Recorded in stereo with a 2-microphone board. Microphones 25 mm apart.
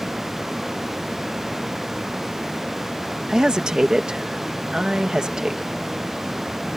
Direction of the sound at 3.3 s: 30° right (ahead or behind).